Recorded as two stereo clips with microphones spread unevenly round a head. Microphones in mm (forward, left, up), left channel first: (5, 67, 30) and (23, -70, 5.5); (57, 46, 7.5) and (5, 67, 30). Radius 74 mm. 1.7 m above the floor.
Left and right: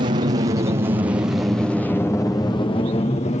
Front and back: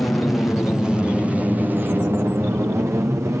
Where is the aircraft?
85° right; by 3.4 s 120° left.